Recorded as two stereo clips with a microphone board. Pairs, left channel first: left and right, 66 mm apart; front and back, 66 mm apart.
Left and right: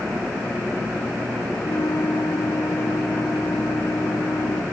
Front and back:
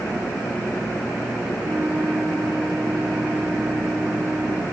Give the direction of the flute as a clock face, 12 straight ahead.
8 o'clock.